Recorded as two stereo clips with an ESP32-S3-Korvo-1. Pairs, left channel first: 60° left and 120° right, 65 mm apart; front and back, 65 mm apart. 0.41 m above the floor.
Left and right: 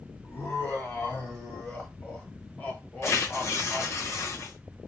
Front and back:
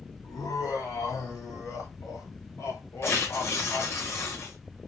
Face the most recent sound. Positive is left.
turn(degrees=30)